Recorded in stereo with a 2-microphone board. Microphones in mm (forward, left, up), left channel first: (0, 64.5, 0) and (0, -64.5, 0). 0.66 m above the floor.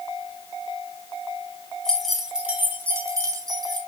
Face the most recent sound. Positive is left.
turn(degrees=-35)  # may be behind; listen again after turning